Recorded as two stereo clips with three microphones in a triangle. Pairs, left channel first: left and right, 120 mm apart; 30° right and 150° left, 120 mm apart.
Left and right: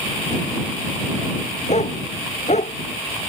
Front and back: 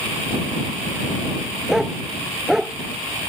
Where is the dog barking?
65° left.